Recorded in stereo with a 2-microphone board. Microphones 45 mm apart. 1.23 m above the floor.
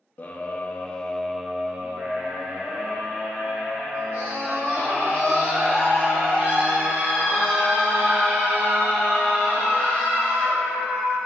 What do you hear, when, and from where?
0.2 s a scream: 35° left (ahead or behind), 0.8 m; by 11.2 s 45° right (ahead or behind), 6 m